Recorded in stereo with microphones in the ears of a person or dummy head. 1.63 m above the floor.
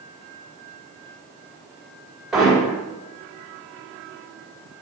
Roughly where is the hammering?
Centre.